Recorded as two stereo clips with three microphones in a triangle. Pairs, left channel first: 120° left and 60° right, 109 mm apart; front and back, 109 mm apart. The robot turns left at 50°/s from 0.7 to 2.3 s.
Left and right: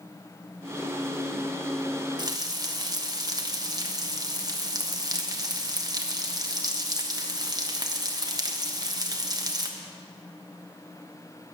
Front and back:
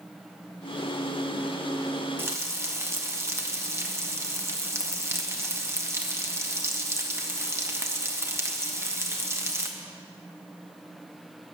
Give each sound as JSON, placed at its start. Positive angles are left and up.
{"t": 2.2, "sound": "frying", "azimuth_deg": -110, "distance_m": 1.2}